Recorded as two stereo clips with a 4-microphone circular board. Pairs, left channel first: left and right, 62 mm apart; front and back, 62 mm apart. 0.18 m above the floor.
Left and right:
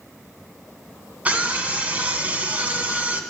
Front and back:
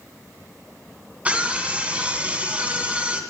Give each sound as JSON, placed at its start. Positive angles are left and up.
{"t": 1.2, "sound": "a scream", "azimuth_deg": -135, "distance_m": 1.7}